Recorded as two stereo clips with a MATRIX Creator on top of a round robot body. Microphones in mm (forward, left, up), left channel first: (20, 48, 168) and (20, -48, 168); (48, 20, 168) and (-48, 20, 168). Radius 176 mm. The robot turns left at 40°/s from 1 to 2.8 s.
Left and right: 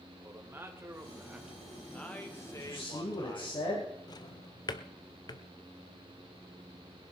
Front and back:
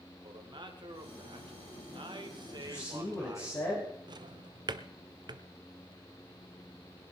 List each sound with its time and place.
0.2 s a man speaking: 155° right, 2 m; by 3.5 s 135° left, 2 m
2.5 s a man speaking: 70° left, 3.5 m; by 3.9 s 60° left, 3.5 m
4.1 s a drawer: 135° left, 0.6 m